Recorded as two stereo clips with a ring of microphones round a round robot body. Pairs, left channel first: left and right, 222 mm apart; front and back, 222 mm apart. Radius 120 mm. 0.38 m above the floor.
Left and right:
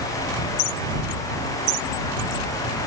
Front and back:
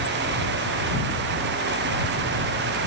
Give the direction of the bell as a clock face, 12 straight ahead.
No bell in this recording.